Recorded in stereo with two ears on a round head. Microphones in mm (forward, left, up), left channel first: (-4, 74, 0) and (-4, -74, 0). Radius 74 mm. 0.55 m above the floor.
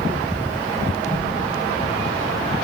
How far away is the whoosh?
About 3.5 m.